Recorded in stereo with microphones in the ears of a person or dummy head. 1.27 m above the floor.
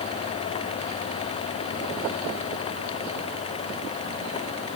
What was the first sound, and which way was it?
Only background noise.